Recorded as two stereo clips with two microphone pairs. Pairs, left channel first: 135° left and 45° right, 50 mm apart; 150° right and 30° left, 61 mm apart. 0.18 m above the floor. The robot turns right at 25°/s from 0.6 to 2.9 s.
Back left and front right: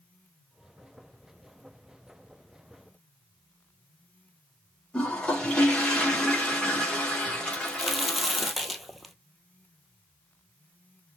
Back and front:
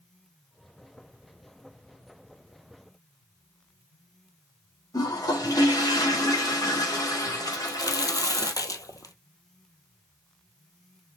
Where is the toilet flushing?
155° right, 4.5 m.